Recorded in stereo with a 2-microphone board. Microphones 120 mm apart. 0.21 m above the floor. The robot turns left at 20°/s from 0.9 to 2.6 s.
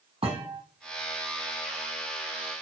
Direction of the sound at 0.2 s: 60° right (ahead or behind).